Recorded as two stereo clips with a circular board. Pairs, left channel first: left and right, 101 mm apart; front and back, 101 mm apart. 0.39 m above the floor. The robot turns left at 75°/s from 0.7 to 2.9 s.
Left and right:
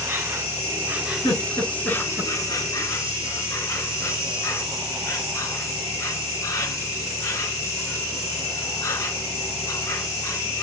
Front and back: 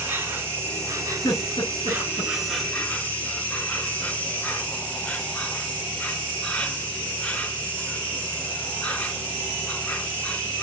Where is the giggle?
55° left, 6.5 m; by 2.3 s 25° right, 6.5 m.